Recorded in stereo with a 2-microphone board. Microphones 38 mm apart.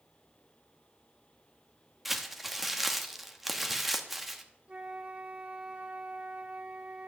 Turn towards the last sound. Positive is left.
turn(degrees=-35)  # may be behind; listen again after turning